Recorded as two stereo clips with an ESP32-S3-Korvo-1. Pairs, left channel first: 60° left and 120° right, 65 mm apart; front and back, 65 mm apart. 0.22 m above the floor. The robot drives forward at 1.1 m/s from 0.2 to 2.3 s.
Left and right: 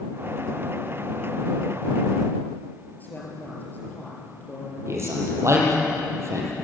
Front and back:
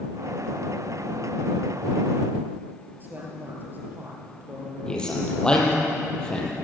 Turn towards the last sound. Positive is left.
turn(degrees=-75)